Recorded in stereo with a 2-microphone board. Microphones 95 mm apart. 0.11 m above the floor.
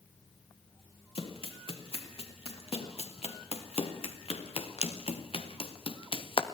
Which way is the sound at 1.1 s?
75° left (ahead or behind).